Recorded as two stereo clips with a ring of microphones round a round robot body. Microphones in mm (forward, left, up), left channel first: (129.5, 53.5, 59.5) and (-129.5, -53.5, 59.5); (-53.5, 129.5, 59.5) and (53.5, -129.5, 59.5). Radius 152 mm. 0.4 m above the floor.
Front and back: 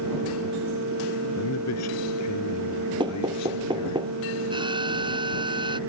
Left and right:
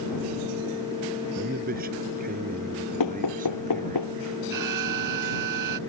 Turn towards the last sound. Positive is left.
turn(degrees=-85)